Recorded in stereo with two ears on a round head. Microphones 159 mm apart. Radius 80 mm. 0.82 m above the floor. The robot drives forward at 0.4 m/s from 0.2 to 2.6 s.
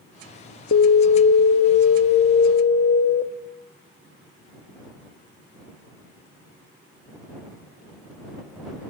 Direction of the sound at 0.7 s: 65° left (ahead or behind).